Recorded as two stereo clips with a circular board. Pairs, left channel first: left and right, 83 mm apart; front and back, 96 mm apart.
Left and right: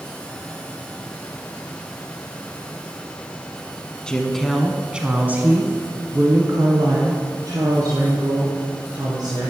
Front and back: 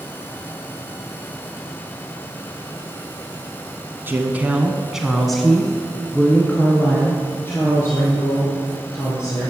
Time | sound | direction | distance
4.1 | a woman speaking | 155° left | 1.1 m